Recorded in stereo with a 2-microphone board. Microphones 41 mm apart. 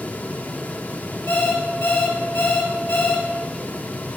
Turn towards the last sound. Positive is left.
turn(degrees=60)  # may be behind; listen again after turning